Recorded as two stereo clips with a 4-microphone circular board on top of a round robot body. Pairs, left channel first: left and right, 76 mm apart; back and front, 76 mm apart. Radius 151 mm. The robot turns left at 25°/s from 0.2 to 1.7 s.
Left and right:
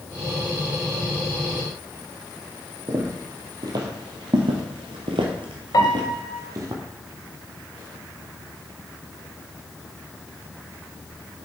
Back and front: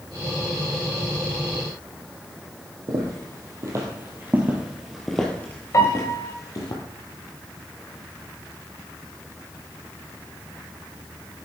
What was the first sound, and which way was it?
Footsteps, 40° right.